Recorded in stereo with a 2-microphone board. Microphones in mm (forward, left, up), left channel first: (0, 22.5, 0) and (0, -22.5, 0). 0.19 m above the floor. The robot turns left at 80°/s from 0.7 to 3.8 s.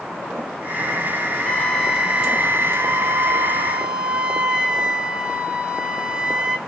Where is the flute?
30° left, 1.1 m; by 6.6 s 160° right, 1.1 m.